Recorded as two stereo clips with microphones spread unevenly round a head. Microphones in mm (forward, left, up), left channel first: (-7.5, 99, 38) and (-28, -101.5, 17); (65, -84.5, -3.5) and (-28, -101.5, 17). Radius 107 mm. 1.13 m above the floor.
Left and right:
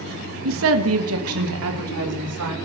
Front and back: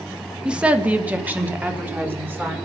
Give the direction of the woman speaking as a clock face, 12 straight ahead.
3 o'clock.